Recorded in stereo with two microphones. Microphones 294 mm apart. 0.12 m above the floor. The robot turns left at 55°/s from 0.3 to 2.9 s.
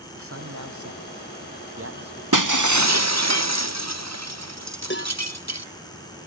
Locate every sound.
0.1 s a man speaking: 50° right; by 2.2 s 155° right
2.3 s breaking glass: 90° right; by 5.7 s 125° right
4.9 s a cowbell: 35° left (ahead or behind)